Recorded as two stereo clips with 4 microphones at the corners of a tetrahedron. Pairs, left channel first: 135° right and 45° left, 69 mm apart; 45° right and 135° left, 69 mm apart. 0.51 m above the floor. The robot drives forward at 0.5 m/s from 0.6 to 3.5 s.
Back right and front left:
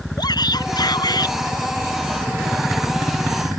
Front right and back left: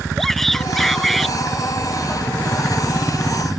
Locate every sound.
0.2 s a shout: 130° right; by 1.4 s 135° right